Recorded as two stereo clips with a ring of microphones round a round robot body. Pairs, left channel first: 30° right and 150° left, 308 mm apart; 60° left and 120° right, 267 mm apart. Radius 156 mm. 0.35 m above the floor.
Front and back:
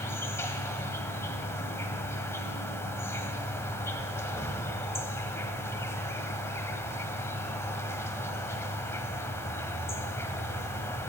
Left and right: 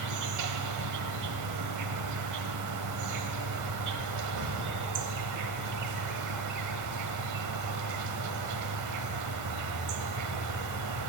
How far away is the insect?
About 0.8 m.